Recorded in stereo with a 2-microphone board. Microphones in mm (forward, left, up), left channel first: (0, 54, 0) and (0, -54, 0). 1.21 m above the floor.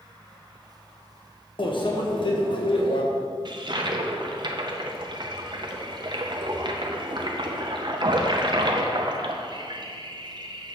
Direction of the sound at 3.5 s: 45° right (ahead or behind).